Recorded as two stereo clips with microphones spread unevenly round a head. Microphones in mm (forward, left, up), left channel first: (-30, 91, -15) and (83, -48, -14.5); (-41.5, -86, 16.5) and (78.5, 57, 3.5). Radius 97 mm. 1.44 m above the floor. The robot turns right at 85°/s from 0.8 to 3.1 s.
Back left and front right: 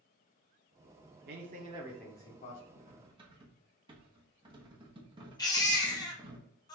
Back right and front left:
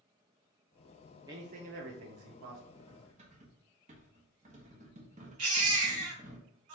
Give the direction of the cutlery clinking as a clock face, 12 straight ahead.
1 o'clock.